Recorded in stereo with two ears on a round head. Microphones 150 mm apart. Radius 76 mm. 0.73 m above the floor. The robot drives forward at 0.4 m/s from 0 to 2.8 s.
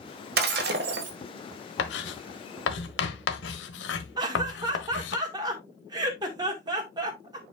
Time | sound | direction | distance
0.4 | breaking glass | 60° right (ahead or behind) | 1.8 m
1.8 | writing | 70° left (ahead or behind) | 1.2 m
4.2 | laughter | 25° right (ahead or behind) | 1.7 m